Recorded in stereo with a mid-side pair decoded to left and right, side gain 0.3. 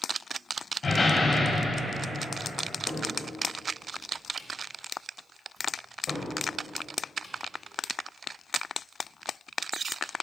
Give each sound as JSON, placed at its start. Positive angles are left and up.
{"t": 0.8, "sound": "a door slam", "azimuth_deg": 55, "distance_m": 1.9}
{"t": 2.9, "sound": "a cupboard door", "azimuth_deg": 60, "distance_m": 2.0}